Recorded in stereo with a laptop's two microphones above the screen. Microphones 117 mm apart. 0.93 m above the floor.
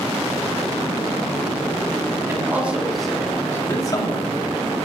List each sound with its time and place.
2.3 s a man speaking: 20° right (ahead or behind), 2 m; by 4.8 s 55° left (ahead or behind), 2.5 m